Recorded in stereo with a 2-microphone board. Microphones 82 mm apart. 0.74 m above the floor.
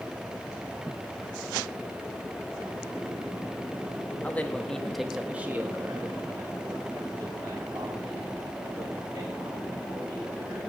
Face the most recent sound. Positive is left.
turn(degrees=-50)  # may be behind; listen again after turning